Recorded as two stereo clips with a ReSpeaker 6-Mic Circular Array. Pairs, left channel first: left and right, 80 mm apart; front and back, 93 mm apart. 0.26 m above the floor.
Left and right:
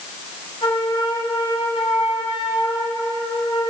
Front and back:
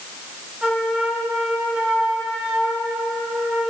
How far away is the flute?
About 6 m.